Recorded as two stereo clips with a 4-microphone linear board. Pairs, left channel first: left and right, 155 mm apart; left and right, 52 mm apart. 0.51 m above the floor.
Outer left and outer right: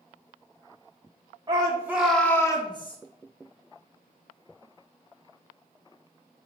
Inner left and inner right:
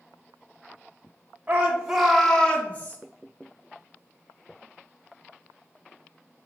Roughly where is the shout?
Right.